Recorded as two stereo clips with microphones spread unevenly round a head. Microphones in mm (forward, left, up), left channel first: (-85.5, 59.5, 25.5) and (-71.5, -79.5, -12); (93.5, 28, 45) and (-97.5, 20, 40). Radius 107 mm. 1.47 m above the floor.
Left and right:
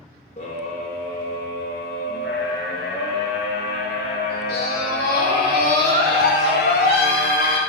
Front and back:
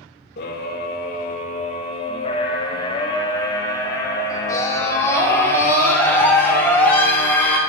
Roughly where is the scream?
Ahead left.